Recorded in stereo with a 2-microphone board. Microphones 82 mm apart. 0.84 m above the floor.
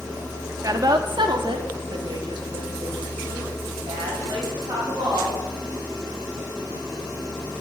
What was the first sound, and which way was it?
A woman speaking, 40° right (ahead or behind).